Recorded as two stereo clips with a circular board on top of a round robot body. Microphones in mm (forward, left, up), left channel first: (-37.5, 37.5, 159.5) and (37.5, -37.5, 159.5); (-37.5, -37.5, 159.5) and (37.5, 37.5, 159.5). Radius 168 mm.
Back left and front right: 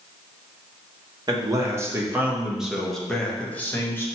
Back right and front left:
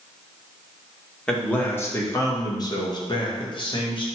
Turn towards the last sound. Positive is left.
turn(degrees=-160)